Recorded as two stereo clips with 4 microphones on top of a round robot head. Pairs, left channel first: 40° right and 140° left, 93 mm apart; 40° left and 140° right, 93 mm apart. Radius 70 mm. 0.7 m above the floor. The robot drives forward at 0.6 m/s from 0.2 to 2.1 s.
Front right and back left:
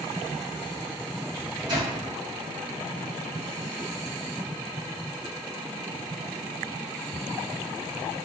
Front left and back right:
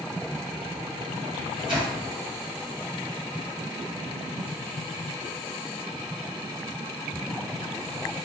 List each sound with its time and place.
1.3 s a microwave: 175° right, 0.9 m